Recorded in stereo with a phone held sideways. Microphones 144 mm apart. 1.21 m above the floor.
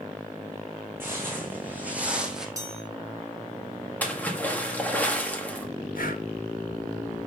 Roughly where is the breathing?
Left.